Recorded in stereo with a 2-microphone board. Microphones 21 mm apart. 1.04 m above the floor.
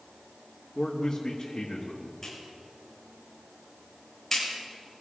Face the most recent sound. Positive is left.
turn(degrees=15)  # may be behind; listen again after turning